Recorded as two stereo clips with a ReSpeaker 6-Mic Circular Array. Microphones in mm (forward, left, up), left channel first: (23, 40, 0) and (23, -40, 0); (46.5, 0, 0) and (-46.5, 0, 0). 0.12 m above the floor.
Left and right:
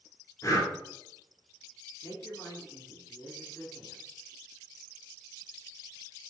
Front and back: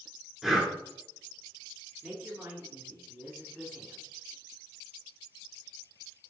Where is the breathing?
95° left, 1.1 m.